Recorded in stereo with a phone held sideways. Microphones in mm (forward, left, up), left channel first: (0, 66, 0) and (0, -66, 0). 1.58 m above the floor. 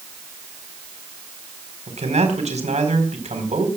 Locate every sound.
1.9 s a man speaking: 60° right (ahead or behind), 4.5 m